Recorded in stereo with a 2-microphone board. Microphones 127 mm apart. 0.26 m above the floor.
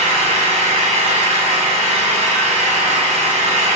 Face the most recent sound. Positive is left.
turn(degrees=-60)  # may be behind; listen again after turning